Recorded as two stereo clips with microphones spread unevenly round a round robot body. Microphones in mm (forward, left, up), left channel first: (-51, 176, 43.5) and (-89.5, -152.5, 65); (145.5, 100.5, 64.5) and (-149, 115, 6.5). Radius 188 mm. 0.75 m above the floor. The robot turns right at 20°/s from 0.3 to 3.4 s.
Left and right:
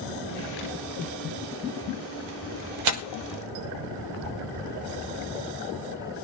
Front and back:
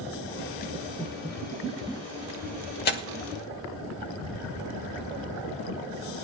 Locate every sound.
2.9 s tearing paper: 70° right, 1.0 m; by 3.0 s 65° right, 1.0 m